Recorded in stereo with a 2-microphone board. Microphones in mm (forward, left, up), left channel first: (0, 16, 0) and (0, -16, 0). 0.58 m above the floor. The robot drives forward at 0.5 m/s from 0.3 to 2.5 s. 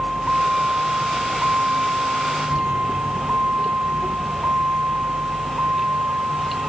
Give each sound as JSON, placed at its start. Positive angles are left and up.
{"t": 0.0, "sound": "a vehicle", "side_deg": -30}